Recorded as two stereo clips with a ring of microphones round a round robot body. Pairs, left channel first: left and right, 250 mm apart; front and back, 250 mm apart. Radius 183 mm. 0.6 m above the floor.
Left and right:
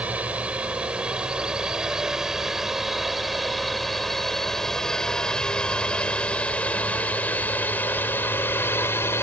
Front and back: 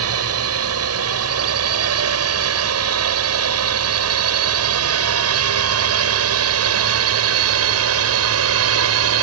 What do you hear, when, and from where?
0.0 s a drone: 175° right; by 9.2 s 170° left